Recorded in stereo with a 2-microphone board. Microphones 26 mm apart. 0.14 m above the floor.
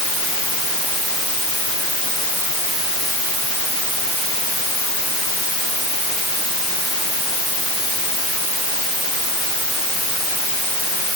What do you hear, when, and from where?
Only background noise.